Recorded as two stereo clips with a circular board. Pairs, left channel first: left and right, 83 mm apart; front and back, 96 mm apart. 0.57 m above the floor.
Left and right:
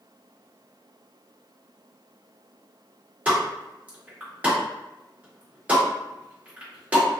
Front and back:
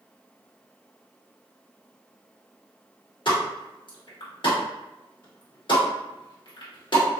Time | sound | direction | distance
3.2 | a pop | 20° right | 1.1 m